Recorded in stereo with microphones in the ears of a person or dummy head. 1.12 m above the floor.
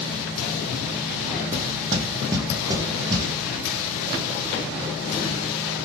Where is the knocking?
20° right (ahead or behind), 0.7 m.